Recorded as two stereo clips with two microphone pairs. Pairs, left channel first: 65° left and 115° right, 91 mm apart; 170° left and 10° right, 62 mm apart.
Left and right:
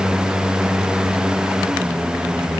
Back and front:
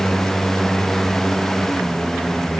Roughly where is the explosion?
I don't hear an explosion.